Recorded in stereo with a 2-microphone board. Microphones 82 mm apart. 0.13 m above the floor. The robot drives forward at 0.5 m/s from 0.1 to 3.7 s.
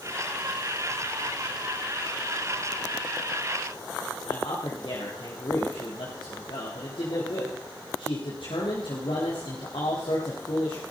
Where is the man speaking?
75° left (ahead or behind), 4.5 m.